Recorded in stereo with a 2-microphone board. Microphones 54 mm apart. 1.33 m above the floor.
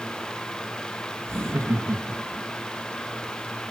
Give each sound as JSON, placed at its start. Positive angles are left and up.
{"t": 1.3, "sound": "laughter", "side_deg": -55, "distance_m": 2.5}